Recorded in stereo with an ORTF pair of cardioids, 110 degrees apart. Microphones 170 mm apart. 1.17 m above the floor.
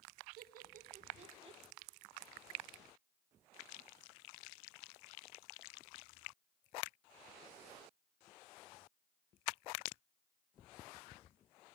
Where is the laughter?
70° right, 1.6 m; by 1.6 s 35° right, 1.1 m.